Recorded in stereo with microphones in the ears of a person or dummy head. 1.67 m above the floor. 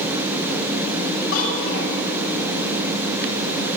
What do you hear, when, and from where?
1.3 s a child speaking: 80° left, 6.5 m